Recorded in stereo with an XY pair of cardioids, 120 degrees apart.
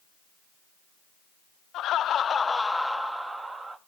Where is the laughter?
70° left, 0.6 m; by 3.8 s 25° right, 1.0 m.